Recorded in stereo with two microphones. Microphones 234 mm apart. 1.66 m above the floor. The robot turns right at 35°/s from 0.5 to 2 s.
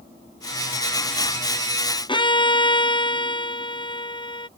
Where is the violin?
20° left (ahead or behind).